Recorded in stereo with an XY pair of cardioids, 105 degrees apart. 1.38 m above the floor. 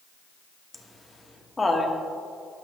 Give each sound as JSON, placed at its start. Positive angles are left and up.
{"t": 0.7, "sound": "laughter", "azimuth_deg": 15, "distance_m": 1.7}